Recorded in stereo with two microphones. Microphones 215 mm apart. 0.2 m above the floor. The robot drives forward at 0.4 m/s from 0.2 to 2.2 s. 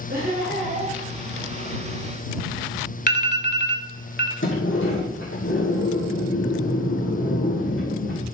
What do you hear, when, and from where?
0.1 s laughter: 50° right (ahead or behind), 3 m; by 1.0 s 45° right (ahead or behind), 3.5 m
3.1 s an alarm: 50° left (ahead or behind), 1.0 m
4.4 s a sliding door: 65° left (ahead or behind), 3 m